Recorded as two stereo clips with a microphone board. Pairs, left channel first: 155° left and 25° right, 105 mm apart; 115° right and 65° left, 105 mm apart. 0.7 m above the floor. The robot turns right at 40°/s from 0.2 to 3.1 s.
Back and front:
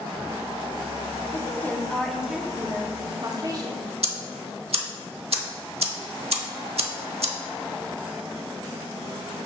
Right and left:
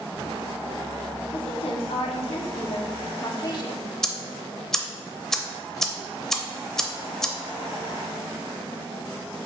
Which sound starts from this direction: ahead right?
Ticking, at 4.0 s.